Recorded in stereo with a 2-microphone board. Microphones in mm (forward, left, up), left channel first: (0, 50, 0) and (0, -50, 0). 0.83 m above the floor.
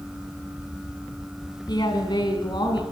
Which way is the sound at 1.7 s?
50° left (ahead or behind).